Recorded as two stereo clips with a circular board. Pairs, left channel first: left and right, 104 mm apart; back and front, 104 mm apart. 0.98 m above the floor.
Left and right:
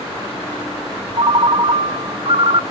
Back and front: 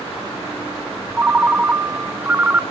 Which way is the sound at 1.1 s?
70° right.